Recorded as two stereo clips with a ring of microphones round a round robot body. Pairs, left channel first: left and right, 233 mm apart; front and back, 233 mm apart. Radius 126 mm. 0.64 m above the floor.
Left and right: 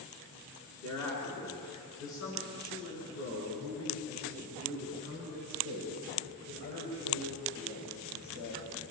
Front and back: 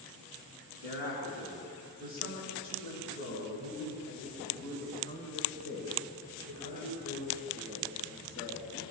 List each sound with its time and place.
0.8 s a man speaking: 105° left, 8 m; by 8.7 s 120° left, 12.5 m